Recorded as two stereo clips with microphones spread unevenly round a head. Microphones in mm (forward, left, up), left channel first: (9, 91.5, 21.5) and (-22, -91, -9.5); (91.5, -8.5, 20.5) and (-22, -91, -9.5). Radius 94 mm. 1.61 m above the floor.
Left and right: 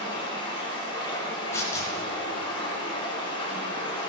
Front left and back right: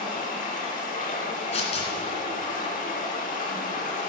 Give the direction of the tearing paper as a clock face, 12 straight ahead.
12 o'clock.